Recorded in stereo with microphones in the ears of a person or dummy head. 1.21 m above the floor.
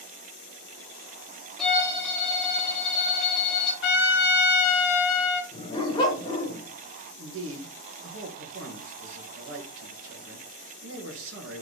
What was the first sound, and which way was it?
A violin, centre (ahead or behind).